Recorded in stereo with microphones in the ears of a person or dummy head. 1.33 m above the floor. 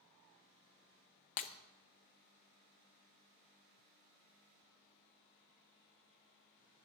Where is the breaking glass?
40° left (ahead or behind), 0.6 m.